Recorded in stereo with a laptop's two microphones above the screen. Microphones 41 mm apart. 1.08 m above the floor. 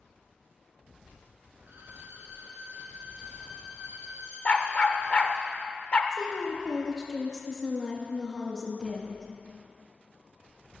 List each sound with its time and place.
1.6 s a violin: 80° right, 3 m
4.5 s a dog barking: 35° left (ahead or behind), 0.9 m
6.1 s a woman speaking: 10° left (ahead or behind), 1.2 m